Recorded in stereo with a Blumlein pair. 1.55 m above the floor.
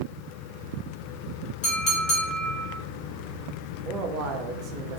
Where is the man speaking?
35° right, 0.7 m.